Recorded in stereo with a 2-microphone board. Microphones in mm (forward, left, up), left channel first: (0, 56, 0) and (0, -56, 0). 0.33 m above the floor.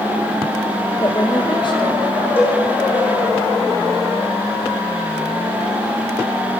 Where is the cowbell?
20° left (ahead or behind), 7.5 m.